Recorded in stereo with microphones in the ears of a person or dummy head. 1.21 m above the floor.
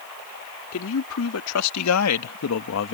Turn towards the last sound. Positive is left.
turn(degrees=60)  # may be behind; listen again after turning